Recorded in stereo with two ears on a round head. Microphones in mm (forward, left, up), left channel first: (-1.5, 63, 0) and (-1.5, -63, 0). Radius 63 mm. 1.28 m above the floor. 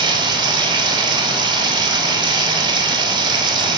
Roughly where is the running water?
Right.